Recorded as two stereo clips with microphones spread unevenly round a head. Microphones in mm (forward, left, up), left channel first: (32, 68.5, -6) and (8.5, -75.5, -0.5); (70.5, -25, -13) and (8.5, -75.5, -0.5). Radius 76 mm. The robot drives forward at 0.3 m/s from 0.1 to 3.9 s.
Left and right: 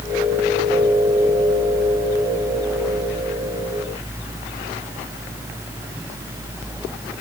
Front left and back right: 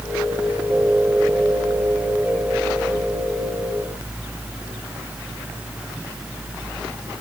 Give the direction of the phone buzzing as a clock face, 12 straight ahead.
I don't hear a phone buzzing.